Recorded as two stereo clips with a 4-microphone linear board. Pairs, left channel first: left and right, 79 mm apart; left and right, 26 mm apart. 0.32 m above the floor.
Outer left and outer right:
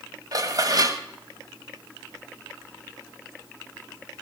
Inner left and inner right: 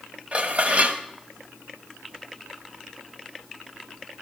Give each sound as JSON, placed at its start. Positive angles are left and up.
{"t": 0.3, "sound": "dishes clattering", "side_deg": -50, "distance_m": 1.1}